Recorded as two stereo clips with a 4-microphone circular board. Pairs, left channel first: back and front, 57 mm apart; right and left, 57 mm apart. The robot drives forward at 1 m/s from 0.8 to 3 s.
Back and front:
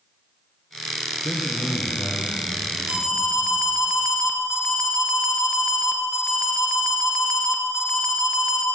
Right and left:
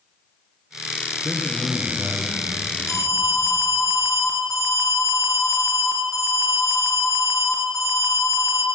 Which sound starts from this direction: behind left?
A man speaking, at 1.2 s.